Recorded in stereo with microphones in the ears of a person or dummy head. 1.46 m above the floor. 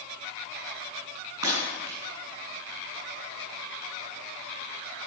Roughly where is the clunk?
No clunk in this recording.